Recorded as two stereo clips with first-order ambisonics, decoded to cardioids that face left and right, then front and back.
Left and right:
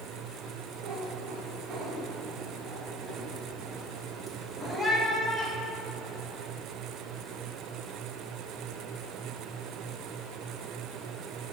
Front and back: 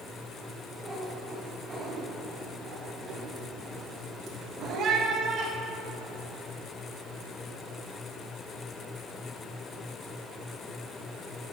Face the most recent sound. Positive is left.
turn(degrees=150)